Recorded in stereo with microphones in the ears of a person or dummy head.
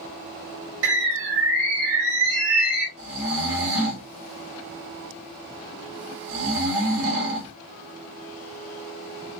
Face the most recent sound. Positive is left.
turn(degrees=-75)  # may be behind; listen again after turning